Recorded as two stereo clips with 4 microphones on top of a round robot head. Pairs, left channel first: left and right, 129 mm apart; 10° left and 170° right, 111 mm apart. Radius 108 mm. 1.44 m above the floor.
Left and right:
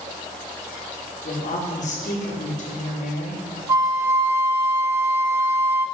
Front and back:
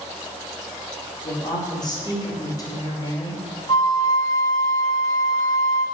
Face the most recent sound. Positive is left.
turn(degrees=-45)